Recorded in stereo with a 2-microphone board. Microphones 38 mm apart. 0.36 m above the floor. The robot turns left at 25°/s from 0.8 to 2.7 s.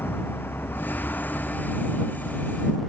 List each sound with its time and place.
0.0 s a vehicle: 65° left (ahead or behind); by 2.9 s 5° left (ahead or behind)